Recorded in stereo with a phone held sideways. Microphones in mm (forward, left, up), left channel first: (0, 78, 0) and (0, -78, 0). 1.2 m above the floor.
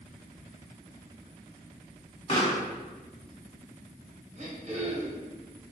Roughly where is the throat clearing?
Right.